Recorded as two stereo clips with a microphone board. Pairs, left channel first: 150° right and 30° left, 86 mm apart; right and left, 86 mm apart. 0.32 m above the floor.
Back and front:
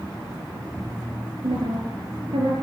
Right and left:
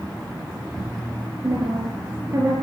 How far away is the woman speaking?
About 6 m.